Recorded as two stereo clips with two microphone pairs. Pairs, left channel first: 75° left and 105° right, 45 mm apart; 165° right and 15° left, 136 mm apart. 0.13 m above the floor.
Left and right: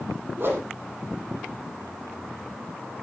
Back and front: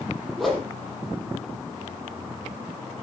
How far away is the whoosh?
About 4 m.